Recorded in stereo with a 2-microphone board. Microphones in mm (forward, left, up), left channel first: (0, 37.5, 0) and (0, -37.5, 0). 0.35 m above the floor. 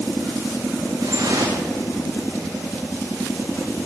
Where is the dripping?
65° right (ahead or behind), 5.5 m.